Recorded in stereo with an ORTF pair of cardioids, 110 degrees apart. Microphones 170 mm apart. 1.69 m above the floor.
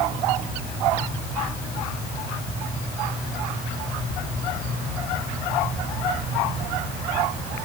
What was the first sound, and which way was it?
Only background noise.